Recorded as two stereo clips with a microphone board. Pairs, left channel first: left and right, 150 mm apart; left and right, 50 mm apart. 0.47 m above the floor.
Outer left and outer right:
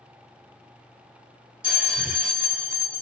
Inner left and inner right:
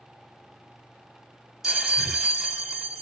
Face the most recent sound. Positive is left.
turn(degrees=-5)  # may be behind; listen again after turning